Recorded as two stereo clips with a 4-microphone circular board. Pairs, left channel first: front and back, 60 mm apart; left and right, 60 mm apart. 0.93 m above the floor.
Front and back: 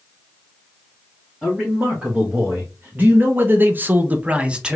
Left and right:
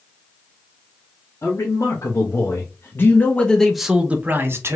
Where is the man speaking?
110° left, 1.4 m; by 4.8 s 110° right, 0.8 m.